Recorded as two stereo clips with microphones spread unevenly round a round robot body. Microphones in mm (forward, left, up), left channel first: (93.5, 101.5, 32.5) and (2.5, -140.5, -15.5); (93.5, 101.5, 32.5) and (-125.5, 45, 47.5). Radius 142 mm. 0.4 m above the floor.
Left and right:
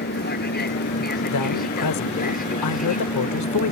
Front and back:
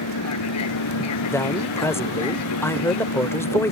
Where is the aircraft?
15° left; by 3.7 s 5° left.